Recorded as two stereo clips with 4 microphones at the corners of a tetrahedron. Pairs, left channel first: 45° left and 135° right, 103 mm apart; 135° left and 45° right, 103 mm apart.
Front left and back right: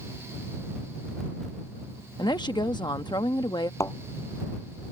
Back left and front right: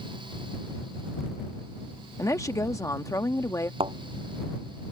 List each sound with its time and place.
2.2 s a woman speaking: 80° left
3.8 s a thud: 15° right